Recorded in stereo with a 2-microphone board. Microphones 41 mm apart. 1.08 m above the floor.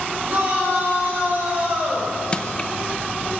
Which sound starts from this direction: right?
A shout, at 0.3 s.